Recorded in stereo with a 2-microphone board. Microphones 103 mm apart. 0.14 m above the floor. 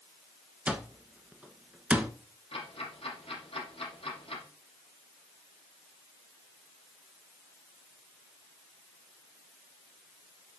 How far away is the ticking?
About 4 m.